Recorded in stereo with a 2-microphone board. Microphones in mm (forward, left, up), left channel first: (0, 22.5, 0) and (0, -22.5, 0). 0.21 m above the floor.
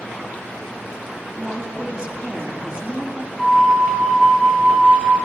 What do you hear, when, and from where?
1.3 s a woman speaking: 25° right (ahead or behind), 1.6 m
3.4 s a flute: centre (ahead or behind), 2.5 m